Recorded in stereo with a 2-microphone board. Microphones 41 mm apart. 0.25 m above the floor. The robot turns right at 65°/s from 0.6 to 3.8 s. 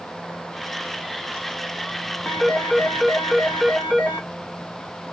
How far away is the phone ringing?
About 1.5 m.